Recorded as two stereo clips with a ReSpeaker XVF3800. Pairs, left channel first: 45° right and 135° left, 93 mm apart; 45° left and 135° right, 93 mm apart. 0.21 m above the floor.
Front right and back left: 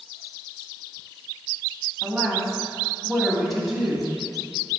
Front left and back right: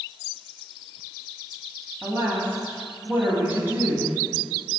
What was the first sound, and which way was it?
A woman speaking, 140° right.